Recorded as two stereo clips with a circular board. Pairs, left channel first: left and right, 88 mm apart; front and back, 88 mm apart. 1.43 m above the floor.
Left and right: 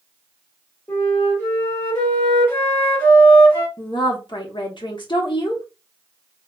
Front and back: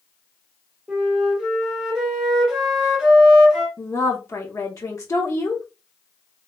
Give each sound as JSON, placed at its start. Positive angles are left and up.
{"t": 0.9, "sound": "a flute", "azimuth_deg": 110, "distance_m": 1.3}
{"t": 3.8, "sound": "a woman speaking", "azimuth_deg": 55, "distance_m": 0.9}